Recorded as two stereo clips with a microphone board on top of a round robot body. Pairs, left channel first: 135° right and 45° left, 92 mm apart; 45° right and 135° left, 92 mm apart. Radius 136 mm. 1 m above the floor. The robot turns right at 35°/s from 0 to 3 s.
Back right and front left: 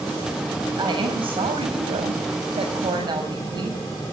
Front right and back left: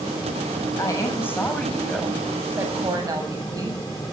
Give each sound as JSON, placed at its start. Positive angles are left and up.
{"t": 0.8, "sound": "a woman speaking", "azimuth_deg": 5, "distance_m": 7.0}